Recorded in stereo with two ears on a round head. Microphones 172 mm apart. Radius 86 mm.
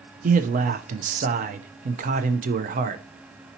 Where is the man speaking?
40° right (ahead or behind), 0.5 m.